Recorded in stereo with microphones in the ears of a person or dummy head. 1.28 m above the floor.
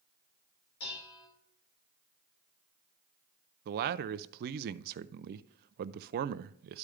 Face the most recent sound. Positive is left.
turn(degrees=-55)  # may be behind; listen again after turning